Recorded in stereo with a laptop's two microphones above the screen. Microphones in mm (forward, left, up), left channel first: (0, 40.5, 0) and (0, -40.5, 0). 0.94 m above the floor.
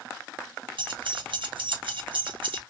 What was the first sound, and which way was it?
Keys jangling, 75° right (ahead or behind).